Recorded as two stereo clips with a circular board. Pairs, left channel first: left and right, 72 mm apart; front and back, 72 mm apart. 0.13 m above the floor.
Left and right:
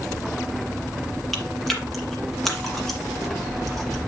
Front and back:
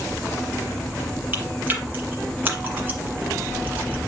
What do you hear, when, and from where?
1.3 s chewing: 170° left, 1.6 m